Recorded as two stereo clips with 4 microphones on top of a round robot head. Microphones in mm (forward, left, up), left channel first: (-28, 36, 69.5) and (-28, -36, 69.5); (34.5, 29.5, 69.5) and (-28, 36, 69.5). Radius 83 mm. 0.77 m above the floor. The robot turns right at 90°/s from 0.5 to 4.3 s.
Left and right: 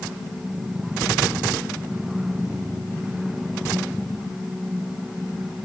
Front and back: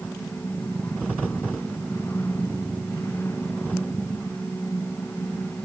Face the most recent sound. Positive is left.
No sound to turn to.